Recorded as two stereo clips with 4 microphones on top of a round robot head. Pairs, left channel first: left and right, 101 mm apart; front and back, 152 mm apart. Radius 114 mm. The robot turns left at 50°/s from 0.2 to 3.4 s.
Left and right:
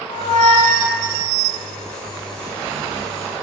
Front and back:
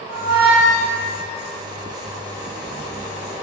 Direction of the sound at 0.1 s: 30° left.